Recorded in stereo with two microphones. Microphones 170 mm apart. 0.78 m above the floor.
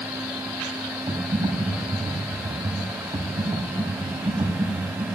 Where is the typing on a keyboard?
25° right (ahead or behind), 3.5 m.